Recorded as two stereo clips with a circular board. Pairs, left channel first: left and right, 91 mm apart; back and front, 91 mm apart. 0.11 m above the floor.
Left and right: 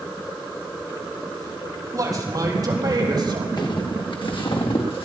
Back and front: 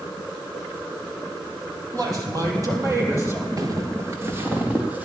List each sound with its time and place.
1.9 s a man speaking: 40° right, 4 m; by 3.5 s 60° right, 4 m
3.6 s footsteps: 50° left, 2.5 m; by 5.1 s 70° left, 4 m